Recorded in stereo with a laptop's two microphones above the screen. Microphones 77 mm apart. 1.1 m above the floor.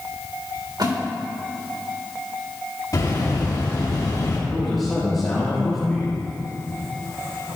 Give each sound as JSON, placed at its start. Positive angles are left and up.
{"t": 0.8, "sound": "a splash", "side_deg": -65, "distance_m": 3.5}
{"t": 2.9, "sound": "a bird", "side_deg": 55, "distance_m": 2.5}
{"t": 4.5, "sound": "a man speaking", "side_deg": 0, "distance_m": 3.0}